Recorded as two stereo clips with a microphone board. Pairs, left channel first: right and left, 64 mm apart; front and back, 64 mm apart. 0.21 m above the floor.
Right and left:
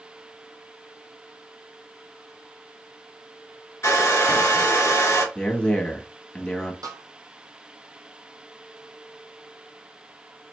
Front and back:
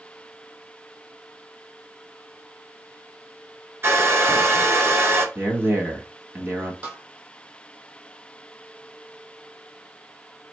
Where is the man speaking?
155° right, 1.2 m.